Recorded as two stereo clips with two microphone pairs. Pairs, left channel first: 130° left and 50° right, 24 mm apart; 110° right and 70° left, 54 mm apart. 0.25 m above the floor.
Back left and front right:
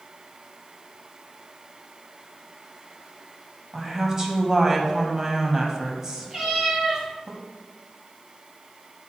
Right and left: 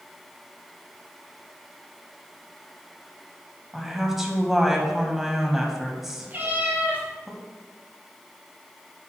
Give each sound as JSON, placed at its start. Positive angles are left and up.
{"t": 3.7, "sound": "a woman speaking", "azimuth_deg": -10, "distance_m": 1.8}
{"t": 6.3, "sound": "a cat meowing", "azimuth_deg": 15, "distance_m": 3.0}